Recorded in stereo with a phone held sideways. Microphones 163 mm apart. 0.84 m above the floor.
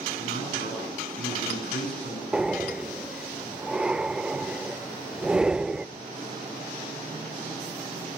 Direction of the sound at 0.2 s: 80° left.